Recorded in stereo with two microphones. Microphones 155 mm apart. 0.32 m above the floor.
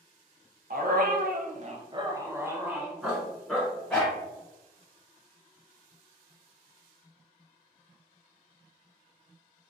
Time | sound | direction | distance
0.7 | a dog barking | 65° right (ahead or behind) | 0.6 m